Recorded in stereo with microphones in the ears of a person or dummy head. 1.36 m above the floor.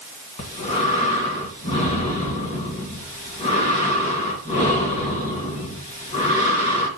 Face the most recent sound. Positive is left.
turn(degrees=35)  # may be behind; listen again after turning